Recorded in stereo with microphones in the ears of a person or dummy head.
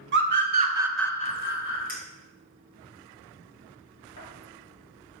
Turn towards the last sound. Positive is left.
turn(degrees=50)  # may be behind; listen again after turning